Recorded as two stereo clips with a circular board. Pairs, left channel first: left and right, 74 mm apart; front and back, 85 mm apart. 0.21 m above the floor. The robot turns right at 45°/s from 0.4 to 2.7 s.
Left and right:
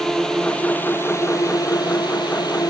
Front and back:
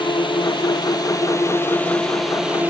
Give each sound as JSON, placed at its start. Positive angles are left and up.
{"t": 0.0, "sound": "a drone", "azimuth_deg": 10}